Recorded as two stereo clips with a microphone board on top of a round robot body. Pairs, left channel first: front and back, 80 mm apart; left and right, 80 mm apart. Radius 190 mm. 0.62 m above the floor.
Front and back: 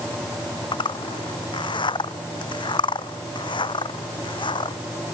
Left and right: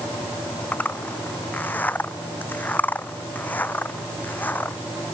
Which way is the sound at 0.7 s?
20° left.